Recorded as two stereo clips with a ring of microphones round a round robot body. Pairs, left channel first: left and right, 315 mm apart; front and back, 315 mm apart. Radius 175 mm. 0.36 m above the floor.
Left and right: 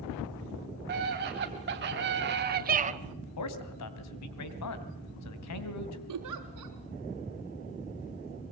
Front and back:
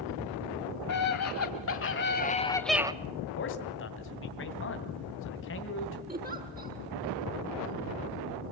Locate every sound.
0.9 s a scream: 30° right, 2.5 m; by 2.9 s 125° right, 0.9 m
3.4 s a man speaking: 55° left, 2.5 m
6.1 s a giggle: 115° right, 4 m